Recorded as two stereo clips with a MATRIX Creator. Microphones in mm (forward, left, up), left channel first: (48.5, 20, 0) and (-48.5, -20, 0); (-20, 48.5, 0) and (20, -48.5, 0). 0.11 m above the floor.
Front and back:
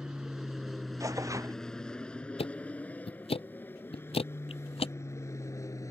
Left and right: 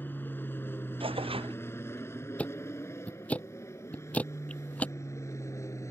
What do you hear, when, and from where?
0.0 s an aircraft: 130° left; by 5.9 s 65° left
1.0 s tearing paper: 100° right
2.4 s ticking: 35° left